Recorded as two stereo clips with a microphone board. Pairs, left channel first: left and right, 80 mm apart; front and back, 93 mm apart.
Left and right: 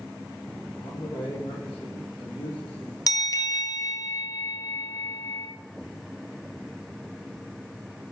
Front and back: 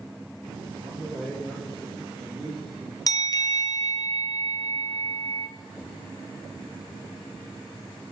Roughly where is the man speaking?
Left.